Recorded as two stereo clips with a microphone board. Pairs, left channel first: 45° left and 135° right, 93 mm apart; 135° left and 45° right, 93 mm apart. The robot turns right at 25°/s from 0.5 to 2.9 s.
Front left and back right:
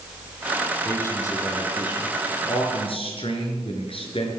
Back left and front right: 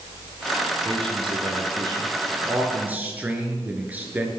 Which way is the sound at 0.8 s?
25° right.